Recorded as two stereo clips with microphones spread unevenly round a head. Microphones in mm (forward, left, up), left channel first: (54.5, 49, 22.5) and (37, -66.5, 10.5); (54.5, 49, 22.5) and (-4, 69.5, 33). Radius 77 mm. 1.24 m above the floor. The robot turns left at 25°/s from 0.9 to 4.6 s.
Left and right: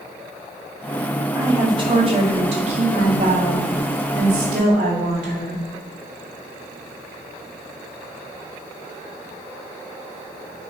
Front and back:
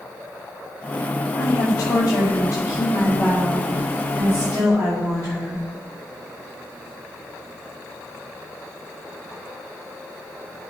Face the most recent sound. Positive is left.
turn(degrees=-125)